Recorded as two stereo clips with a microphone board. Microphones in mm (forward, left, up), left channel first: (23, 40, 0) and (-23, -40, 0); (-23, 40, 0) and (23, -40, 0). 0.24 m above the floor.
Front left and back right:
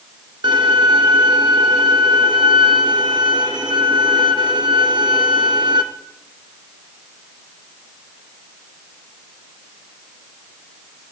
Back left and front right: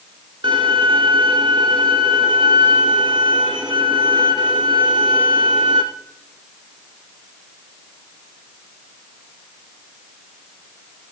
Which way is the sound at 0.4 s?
85° right.